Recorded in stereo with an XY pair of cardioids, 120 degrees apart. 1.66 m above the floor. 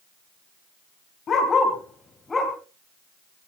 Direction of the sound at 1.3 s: 45° left.